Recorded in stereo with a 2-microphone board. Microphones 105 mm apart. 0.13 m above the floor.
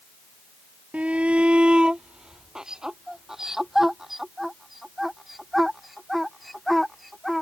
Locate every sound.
0.9 s a shout: 15° right (ahead or behind); by 7.4 s centre (ahead or behind)